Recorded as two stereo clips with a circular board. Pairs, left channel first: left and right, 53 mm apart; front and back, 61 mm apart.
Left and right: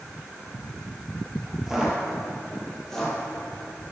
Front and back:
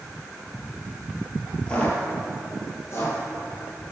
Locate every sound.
1.7 s footsteps: 30° right, 1.7 m; by 3.2 s 20° left, 2 m